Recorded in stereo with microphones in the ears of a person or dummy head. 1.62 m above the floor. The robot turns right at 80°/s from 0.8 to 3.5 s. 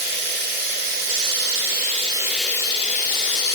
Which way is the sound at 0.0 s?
125° right.